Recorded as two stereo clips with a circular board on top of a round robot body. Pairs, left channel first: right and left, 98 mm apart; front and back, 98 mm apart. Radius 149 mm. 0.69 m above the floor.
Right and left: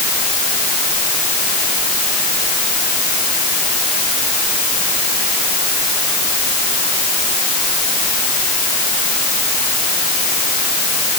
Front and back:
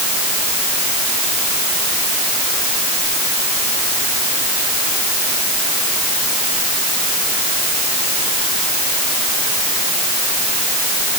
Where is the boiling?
No boiling in this recording.